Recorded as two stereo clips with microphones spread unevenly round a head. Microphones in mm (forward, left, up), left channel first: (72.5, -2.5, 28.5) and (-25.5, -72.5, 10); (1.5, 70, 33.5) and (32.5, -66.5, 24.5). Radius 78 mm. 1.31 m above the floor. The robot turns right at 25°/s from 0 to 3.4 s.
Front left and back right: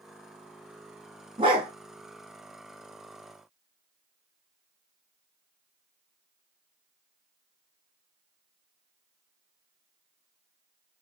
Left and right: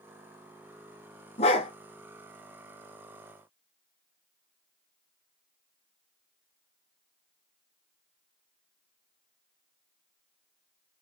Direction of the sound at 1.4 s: 150° left.